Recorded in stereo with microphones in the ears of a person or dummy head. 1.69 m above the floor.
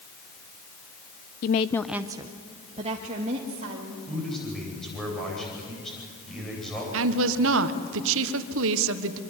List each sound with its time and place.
1.4 s a woman speaking: 40° left (ahead or behind), 0.6 m; by 4.0 s 40° right (ahead or behind), 3 m
4.1 s a man speaking: 5° left (ahead or behind), 9.5 m
6.9 s a woman speaking: 75° right (ahead or behind), 1.4 m